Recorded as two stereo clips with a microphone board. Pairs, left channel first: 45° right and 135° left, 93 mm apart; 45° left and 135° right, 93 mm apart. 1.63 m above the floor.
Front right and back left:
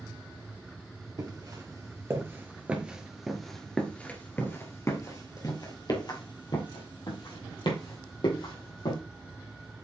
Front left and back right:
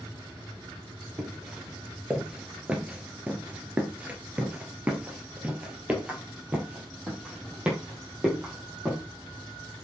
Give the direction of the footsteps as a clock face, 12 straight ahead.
7 o'clock.